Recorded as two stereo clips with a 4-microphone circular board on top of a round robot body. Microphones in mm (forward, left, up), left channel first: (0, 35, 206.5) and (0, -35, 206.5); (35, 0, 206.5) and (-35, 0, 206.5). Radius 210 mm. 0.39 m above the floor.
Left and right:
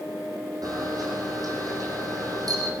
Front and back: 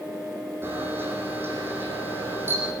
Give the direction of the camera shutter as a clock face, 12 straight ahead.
4 o'clock.